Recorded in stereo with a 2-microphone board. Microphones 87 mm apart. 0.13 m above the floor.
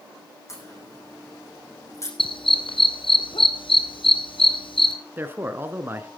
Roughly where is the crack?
Left.